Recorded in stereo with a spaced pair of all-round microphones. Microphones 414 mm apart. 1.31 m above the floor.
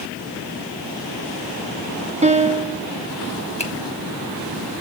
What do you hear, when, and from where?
2.2 s a piano: 15° right (ahead or behind), 0.7 m
3.6 s a finger snap: 15° left (ahead or behind), 1.6 m